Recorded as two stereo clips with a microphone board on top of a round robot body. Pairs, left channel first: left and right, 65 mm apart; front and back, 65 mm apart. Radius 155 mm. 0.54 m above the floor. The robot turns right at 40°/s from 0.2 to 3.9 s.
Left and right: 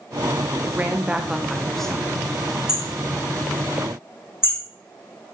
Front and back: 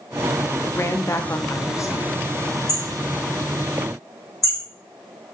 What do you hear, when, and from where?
0.6 s a woman speaking: 40° right, 1.0 m; by 2.2 s 25° left, 1.0 m
2.7 s hammering: 10° right, 5.5 m; by 4.6 s 40° left, 5.5 m